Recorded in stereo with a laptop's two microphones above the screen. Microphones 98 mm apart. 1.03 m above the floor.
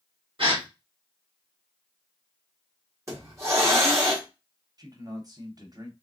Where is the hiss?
30° right (ahead or behind), 1.4 m.